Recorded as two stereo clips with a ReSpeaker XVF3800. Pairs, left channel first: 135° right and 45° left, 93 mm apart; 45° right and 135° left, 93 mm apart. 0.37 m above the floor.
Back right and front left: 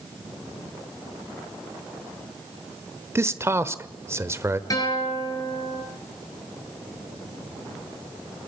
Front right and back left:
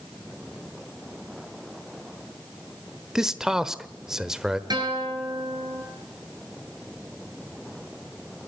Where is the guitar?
175° left, 6.5 m.